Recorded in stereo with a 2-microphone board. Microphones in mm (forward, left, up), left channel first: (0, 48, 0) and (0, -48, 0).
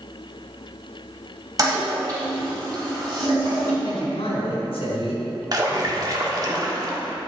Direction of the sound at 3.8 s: 80° left.